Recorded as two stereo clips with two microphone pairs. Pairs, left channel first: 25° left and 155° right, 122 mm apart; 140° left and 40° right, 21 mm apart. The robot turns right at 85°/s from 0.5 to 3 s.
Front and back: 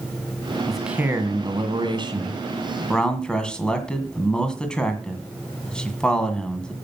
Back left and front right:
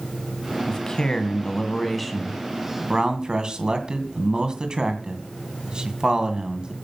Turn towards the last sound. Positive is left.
turn(degrees=-55)